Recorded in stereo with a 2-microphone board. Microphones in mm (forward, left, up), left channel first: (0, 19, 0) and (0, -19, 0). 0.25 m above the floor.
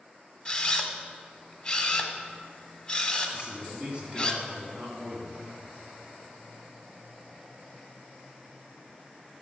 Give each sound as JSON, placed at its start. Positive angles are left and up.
{"t": 0.5, "sound": "a camera shutter", "side_deg": 20, "distance_m": 1.1}
{"t": 3.3, "sound": "a man speaking", "side_deg": -30, "distance_m": 3.0}